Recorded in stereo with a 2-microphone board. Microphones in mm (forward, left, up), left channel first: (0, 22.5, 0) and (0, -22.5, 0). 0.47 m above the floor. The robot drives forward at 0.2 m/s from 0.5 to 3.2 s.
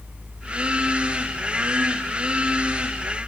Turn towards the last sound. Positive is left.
No sound to turn to.